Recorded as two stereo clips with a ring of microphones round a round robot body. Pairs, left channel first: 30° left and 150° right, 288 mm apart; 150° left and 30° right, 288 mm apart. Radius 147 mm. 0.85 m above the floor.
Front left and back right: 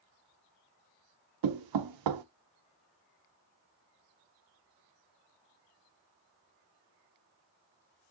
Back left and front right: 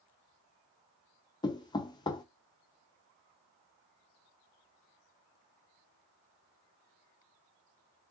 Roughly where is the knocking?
Behind right.